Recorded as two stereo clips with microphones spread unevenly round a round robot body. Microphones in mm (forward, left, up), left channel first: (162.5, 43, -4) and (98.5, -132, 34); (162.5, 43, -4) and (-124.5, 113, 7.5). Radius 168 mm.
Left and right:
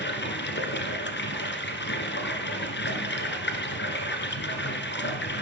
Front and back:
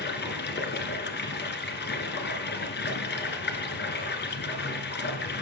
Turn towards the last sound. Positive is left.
turn(degrees=45)